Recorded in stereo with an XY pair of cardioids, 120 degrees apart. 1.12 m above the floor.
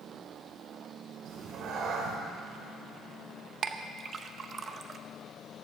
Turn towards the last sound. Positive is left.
turn(degrees=-40)